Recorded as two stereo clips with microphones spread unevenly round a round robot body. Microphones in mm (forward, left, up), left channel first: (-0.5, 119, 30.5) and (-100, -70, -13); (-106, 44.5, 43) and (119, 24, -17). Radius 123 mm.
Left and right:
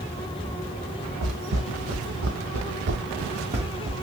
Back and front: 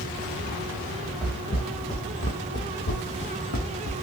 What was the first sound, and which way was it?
Footsteps, 105° right.